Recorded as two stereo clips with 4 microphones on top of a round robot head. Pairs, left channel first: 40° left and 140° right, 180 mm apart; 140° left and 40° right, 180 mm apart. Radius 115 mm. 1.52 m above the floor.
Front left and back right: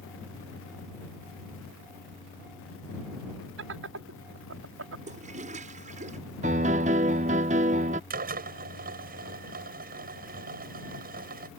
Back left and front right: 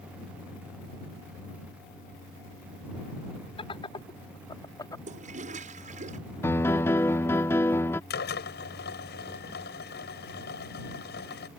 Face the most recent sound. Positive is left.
turn(degrees=175)